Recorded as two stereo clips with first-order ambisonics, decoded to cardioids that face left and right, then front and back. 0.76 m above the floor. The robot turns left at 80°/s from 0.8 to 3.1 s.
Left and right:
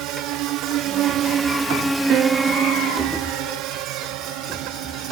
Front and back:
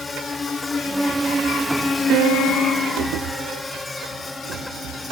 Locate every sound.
0.0 s a drone: 75° right; by 5.1 s 80° right
2.1 s a piano: 135° right; by 3.6 s 140° left